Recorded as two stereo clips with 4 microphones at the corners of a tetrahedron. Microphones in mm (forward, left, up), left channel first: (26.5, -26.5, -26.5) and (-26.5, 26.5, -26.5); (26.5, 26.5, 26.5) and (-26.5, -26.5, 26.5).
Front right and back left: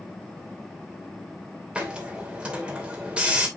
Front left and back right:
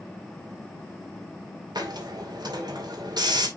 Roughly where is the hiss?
Behind right.